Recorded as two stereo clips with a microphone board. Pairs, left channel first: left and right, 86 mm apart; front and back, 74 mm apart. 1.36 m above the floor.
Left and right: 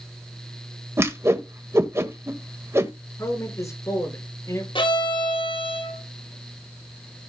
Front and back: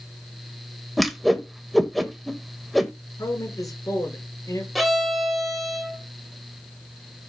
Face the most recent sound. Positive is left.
turn(degrees=90)